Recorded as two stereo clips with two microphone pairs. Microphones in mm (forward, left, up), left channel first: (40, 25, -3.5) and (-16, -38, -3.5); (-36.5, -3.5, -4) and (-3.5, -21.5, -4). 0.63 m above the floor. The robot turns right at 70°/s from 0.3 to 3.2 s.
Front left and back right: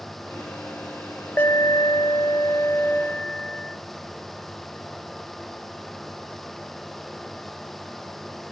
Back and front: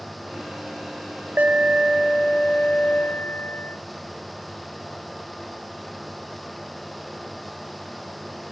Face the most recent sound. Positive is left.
turn(degrees=110)